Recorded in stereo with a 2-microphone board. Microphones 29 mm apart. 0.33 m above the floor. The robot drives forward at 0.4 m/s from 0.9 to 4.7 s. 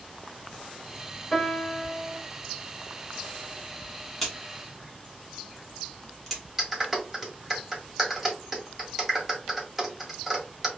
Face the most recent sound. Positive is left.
turn(degrees=-10)  # may be behind; listen again after turning